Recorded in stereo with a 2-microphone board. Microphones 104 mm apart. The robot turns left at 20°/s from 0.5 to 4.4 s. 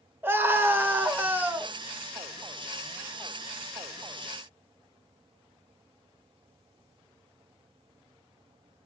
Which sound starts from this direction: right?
A scream, at 0.2 s.